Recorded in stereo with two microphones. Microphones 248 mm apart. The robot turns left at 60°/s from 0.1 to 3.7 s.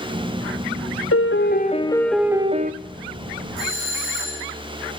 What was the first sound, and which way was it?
A piano, 65° left.